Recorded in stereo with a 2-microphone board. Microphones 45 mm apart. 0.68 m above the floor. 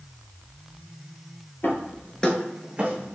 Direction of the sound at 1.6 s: 50° left (ahead or behind).